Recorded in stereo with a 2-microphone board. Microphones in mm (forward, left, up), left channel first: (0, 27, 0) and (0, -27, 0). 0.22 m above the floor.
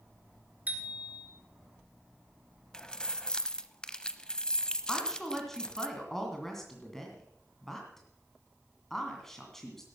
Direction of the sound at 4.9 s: 5° left (ahead or behind).